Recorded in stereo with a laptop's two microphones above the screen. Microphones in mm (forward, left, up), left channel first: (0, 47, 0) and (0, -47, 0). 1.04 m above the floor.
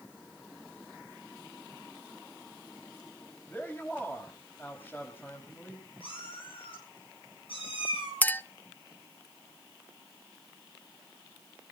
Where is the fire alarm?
No fire alarm in this recording.